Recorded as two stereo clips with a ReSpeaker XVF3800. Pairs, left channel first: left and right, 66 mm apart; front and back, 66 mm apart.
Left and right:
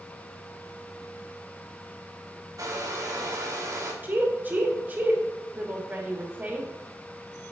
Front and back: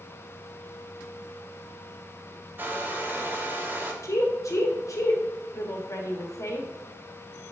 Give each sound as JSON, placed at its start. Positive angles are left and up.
{"t": 2.6, "sound": "a hair dryer", "azimuth_deg": -120, "distance_m": 0.9}
{"t": 4.0, "sound": "a woman speaking", "azimuth_deg": -30, "distance_m": 1.1}